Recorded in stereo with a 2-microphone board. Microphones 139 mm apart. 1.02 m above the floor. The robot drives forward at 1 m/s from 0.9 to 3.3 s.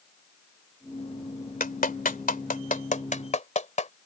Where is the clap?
85° left; by 3.9 s 60° left (ahead or behind).